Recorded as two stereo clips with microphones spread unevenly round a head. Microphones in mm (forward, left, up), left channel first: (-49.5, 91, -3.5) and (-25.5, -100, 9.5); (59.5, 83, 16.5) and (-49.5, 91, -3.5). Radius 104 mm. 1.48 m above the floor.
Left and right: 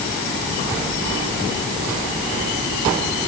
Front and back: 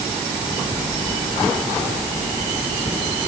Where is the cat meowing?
I don't hear a cat meowing.